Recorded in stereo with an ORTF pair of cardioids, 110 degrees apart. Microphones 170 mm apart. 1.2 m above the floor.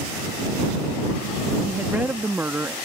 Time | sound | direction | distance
1.6 | a woman speaking | 10° right | ?